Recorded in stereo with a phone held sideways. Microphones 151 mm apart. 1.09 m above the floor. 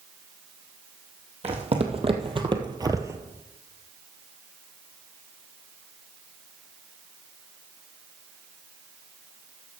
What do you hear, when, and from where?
1.4 s footsteps: 45° right (ahead or behind), 2 m; by 3.2 s 15° right (ahead or behind), 1.1 m